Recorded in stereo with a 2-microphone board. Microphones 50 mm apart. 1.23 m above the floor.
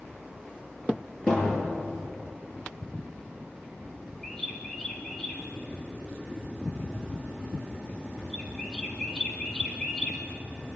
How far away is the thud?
About 9.5 m.